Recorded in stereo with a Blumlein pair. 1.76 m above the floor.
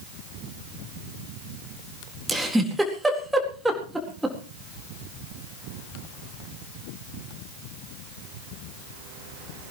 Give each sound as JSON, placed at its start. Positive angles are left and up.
{"t": 2.3, "sound": "a giggle", "azimuth_deg": -5, "distance_m": 4.0}